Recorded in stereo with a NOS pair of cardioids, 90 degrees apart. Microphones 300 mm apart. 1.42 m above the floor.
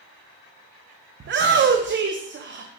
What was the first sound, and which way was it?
A shout, 40° right.